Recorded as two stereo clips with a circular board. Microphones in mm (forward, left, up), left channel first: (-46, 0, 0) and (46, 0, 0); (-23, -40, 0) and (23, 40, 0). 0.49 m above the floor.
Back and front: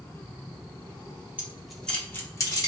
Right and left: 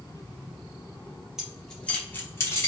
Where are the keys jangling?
10° right, 0.7 m; by 2.7 s 160° right, 1.0 m.